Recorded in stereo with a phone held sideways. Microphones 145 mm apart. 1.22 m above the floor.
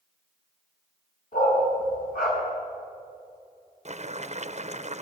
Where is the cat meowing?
I don't hear a cat meowing.